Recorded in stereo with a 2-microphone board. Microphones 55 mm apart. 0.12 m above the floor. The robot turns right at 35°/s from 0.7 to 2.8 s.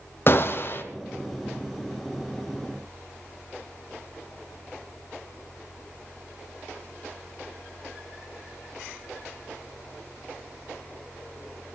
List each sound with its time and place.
0.3 s a gunshot: 45° left (ahead or behind), 1.0 m; by 0.8 s 40° left (ahead or behind), 1.0 m